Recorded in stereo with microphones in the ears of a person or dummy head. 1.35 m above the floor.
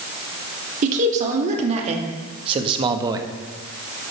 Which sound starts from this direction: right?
A man speaking, at 0.8 s.